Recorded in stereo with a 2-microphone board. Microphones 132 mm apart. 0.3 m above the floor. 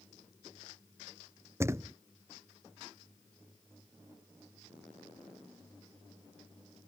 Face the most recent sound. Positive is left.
turn(degrees=-20)  # may be behind; listen again after turning